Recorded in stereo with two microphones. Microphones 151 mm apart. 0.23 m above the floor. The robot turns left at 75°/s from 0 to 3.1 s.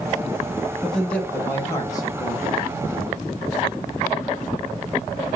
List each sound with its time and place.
0.8 s a man speaking: centre (ahead or behind), 1.0 m; by 2.6 s 20° left (ahead or behind), 1.0 m